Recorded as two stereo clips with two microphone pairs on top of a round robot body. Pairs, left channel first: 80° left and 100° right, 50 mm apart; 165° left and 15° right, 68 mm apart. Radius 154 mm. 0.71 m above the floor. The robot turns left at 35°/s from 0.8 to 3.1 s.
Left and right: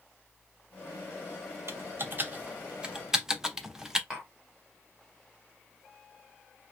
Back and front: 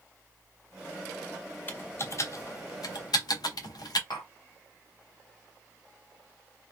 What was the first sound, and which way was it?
Typing on a keyboard, 130° right.